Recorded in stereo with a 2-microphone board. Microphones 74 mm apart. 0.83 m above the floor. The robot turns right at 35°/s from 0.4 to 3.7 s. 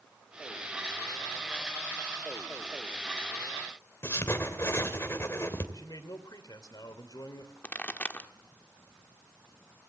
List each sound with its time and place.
4.0 s writing: 35° left (ahead or behind), 2.5 m
5.7 s a man speaking: 55° left (ahead or behind), 3 m
7.6 s a pop: 20° left (ahead or behind), 1.2 m